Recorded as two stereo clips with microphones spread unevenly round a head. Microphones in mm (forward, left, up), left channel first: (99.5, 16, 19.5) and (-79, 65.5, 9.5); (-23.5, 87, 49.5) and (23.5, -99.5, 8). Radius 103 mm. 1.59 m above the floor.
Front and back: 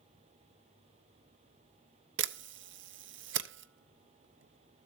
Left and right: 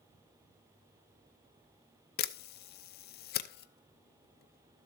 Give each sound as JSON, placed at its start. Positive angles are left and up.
{"t": 2.2, "sound": "a camera shutter", "azimuth_deg": 145, "distance_m": 0.7}